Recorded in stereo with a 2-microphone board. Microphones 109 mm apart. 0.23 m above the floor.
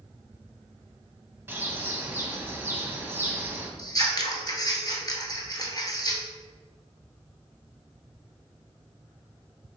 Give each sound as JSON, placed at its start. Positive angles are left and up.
{"t": 1.5, "sound": "a bird", "side_deg": -20, "distance_m": 0.7}
{"t": 3.8, "sound": "scissors", "side_deg": 35, "distance_m": 0.9}